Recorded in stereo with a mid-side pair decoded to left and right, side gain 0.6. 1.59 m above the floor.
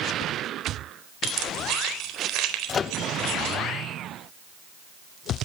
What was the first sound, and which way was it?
Keys jangling, 65° right.